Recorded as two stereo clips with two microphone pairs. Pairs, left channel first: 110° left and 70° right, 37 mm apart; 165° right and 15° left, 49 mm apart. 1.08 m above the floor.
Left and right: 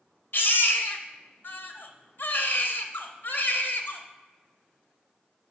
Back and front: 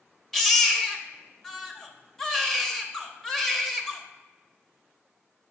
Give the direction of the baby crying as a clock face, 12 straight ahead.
8 o'clock.